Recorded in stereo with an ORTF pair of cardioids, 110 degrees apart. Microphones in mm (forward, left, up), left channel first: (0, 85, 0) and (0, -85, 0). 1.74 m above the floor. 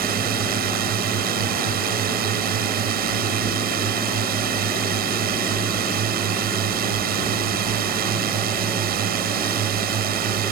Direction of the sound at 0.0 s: 60° right.